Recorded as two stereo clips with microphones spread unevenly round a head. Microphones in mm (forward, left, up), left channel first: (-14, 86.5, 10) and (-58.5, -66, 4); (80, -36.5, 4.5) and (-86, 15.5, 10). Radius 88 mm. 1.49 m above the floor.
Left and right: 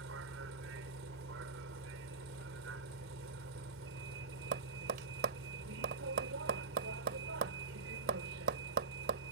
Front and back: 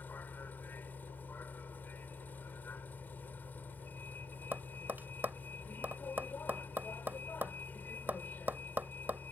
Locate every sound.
0.0 s a vehicle: 100° right
4.5 s tapping: 120° right